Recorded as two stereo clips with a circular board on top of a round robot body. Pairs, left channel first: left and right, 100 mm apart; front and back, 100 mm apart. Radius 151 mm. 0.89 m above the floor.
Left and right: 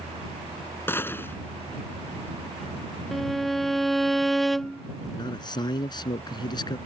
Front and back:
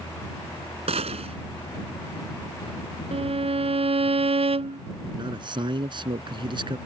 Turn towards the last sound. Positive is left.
turn(degrees=140)